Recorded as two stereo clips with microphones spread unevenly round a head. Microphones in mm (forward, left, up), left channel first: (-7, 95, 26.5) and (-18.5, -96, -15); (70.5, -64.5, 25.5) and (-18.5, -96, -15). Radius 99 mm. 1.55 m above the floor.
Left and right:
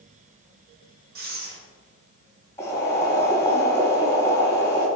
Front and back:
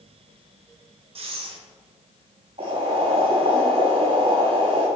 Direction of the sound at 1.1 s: 135° right.